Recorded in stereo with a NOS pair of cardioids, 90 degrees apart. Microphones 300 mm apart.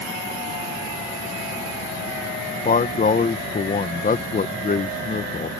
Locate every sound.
2.6 s a man speaking: 30° left